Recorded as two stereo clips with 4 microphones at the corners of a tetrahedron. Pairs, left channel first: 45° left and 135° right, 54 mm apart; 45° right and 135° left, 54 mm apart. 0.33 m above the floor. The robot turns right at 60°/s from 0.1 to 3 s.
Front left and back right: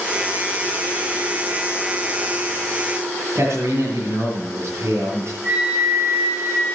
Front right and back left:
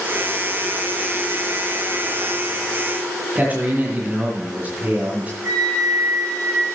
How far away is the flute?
About 6.5 m.